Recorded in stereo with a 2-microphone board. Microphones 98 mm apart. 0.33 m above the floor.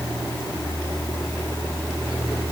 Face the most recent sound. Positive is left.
No sound to turn to.